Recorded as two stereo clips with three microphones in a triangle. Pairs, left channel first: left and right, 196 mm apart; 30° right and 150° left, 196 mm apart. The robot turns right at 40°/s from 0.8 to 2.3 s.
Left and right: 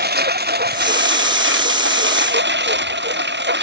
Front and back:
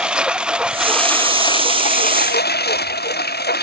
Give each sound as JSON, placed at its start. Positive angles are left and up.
{"t": 0.0, "sound": "a lawn mower", "azimuth_deg": -125}